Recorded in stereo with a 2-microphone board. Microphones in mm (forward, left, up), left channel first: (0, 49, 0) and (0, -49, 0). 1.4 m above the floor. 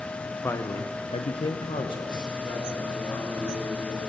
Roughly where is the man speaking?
Left.